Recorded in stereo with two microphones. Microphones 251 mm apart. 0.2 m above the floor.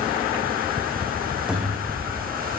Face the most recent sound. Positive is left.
turn(degrees=-5)  # may be behind; listen again after turning